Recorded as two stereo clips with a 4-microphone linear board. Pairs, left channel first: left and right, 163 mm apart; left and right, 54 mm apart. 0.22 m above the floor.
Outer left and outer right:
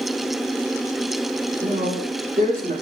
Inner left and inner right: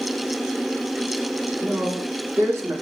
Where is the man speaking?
55° right (ahead or behind), 2.5 m; by 2.7 s 60° right (ahead or behind), 3 m.